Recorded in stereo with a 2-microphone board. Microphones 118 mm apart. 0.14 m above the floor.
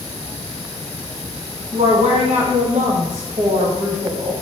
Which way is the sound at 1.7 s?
70° right (ahead or behind).